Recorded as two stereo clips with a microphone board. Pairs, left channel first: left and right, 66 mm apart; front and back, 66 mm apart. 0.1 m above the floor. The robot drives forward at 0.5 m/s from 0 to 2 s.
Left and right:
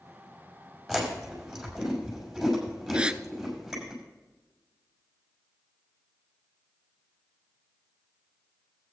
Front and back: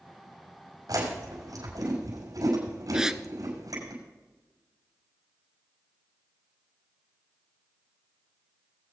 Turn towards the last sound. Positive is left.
turn(degrees=-120)